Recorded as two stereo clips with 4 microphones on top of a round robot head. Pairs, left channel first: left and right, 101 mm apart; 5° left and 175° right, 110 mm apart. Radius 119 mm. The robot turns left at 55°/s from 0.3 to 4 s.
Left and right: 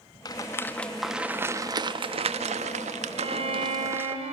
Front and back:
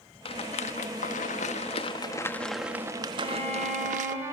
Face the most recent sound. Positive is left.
turn(degrees=-100)